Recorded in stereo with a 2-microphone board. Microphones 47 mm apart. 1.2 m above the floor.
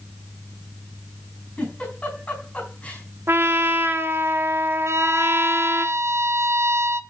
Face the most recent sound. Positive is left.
turn(degrees=-75)  # may be behind; listen again after turning